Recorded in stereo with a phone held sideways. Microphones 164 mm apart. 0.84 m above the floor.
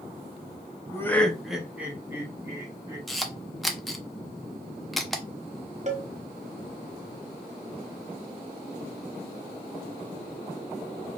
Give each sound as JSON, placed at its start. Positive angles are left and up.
{"t": 0.9, "sound": "laughter", "side_deg": 20, "distance_m": 0.8}
{"t": 3.1, "sound": "a camera shutter", "side_deg": 0, "distance_m": 0.6}
{"t": 5.9, "sound": "a cowbell", "side_deg": -45, "distance_m": 0.8}